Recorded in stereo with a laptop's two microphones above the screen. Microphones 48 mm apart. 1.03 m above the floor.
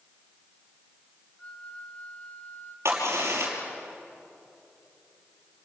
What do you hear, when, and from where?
1.4 s a flute: 25° left (ahead or behind), 1.7 m
2.9 s a crack: 65° right (ahead or behind), 5.5 m